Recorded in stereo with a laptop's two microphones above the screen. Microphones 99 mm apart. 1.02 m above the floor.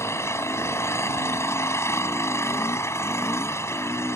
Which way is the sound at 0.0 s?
30° left (ahead or behind).